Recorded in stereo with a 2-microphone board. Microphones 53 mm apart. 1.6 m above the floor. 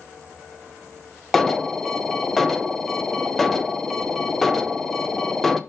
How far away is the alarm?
About 0.6 m.